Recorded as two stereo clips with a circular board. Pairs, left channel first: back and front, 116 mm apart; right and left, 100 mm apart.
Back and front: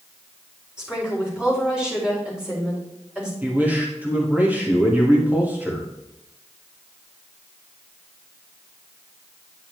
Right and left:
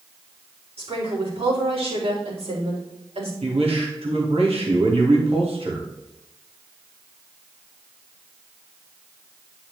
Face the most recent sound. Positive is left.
turn(degrees=75)